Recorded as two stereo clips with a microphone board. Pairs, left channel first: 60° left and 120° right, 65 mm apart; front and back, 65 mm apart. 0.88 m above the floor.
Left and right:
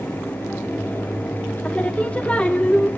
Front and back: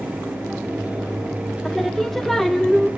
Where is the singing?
80° left, 0.8 m.